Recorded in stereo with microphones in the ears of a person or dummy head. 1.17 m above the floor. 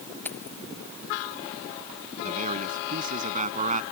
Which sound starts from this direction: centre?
Keys jangling, at 0.2 s.